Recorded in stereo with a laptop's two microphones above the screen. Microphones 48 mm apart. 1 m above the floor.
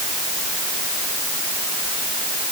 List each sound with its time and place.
Only background noise.